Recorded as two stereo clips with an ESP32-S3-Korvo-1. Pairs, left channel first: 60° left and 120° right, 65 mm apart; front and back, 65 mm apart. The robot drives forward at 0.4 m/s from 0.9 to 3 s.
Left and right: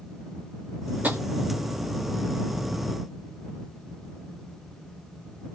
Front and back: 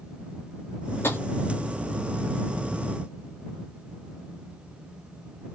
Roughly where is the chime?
No chime in this recording.